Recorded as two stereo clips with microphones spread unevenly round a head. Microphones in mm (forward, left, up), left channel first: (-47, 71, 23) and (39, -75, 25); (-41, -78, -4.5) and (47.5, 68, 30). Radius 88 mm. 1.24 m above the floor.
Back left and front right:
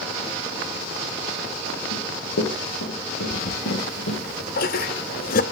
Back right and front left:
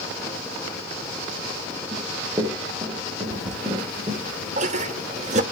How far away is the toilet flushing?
About 0.8 m.